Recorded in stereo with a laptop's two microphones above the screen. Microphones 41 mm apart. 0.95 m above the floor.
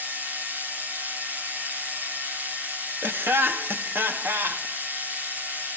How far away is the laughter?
About 1.2 m.